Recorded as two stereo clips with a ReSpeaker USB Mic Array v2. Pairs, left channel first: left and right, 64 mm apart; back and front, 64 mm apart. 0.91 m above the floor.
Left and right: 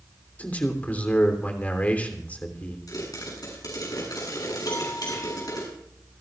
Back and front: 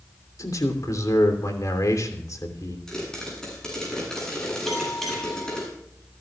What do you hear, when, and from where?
0.4 s a man speaking: 155° left, 3 m
2.9 s a pop: 100° left, 8.5 m
4.7 s a bell: 90° left, 7 m